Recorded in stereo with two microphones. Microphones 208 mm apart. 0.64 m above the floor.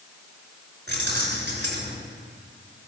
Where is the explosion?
No explosion in this recording.